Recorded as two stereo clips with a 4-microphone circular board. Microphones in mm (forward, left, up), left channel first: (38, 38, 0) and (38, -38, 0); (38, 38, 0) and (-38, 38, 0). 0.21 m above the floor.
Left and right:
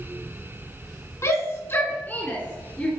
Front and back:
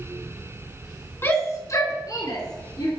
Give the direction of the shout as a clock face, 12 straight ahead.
10 o'clock.